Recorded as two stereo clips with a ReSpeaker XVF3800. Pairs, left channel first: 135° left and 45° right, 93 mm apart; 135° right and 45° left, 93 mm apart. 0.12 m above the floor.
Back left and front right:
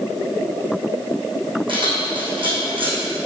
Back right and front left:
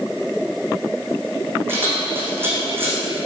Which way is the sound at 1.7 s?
20° right.